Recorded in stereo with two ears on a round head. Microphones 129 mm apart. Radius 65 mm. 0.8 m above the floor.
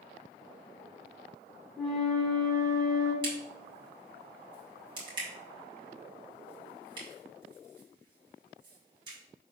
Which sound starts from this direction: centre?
A flute, at 1.8 s.